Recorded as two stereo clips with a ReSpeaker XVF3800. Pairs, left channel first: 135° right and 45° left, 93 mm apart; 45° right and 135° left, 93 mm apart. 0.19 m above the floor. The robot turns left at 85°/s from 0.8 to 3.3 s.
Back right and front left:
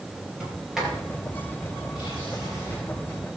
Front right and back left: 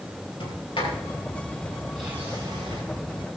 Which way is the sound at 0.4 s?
40° right.